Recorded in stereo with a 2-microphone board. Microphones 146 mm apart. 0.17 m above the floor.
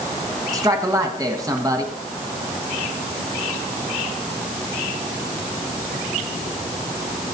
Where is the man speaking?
25° right (ahead or behind), 1.5 m.